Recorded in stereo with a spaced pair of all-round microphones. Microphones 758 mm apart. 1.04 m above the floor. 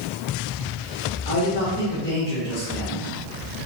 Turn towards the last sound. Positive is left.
turn(degrees=10)  # may be behind; listen again after turning